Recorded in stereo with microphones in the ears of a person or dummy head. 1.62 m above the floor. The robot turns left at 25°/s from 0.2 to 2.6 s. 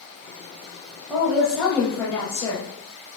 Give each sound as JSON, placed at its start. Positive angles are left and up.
{"t": 1.1, "sound": "a woman speaking", "azimuth_deg": -175, "distance_m": 0.9}